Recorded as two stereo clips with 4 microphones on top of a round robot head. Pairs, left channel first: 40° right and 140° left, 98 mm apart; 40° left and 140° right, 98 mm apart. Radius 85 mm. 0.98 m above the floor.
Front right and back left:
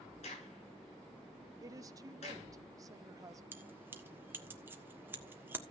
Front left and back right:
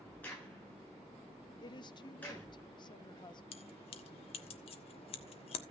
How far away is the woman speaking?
About 1.2 m.